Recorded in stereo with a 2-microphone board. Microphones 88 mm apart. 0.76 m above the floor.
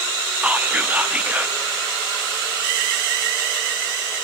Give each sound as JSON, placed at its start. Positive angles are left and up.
{"t": 0.4, "sound": "whispering", "side_deg": -20, "distance_m": 0.6}